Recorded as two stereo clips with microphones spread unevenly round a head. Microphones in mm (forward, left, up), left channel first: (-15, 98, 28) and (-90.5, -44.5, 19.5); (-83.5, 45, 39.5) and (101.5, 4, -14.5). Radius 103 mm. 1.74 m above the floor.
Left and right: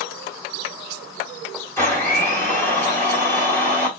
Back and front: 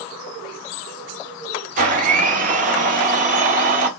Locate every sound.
1.8 s a blender: 15° left, 1.4 m